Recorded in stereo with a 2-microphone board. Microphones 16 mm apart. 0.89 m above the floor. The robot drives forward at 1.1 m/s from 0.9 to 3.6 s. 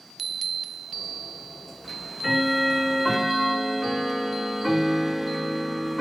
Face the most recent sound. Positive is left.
turn(degrees=0)  # may be behind; listen again after turning